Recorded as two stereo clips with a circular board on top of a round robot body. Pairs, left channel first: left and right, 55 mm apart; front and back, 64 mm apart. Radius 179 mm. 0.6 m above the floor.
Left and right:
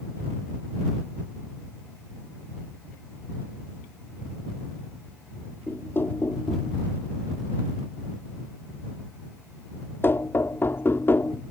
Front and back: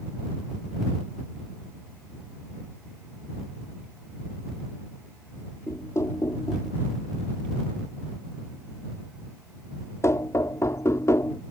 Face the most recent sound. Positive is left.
turn(degrees=40)